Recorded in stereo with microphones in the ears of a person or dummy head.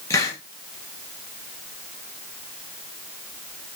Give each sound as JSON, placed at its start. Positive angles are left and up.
{"t": 0.1, "sound": "a hiss", "side_deg": 15, "distance_m": 0.7}